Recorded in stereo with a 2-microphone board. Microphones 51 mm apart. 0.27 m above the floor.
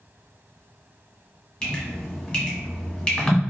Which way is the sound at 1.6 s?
20° left (ahead or behind).